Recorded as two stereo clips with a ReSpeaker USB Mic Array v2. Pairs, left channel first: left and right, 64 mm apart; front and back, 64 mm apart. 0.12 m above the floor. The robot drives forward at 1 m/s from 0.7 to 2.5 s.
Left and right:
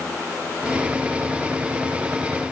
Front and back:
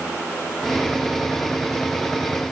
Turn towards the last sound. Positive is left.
No sound to turn to.